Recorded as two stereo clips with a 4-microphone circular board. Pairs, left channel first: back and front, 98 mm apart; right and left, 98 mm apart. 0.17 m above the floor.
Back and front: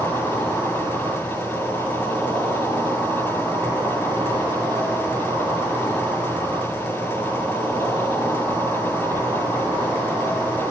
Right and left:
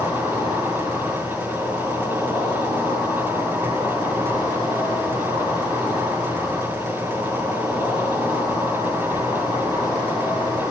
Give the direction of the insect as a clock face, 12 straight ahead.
10 o'clock.